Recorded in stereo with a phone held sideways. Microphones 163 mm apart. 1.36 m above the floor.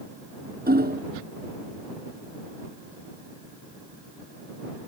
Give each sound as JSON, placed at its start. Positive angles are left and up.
{"t": 0.7, "sound": "hammering", "side_deg": -80}